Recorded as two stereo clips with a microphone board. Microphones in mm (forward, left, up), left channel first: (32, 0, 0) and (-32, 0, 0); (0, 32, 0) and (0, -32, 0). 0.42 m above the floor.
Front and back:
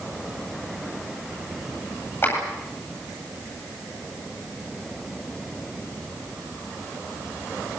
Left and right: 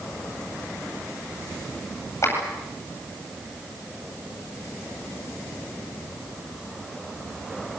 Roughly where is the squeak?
I don't hear a squeak.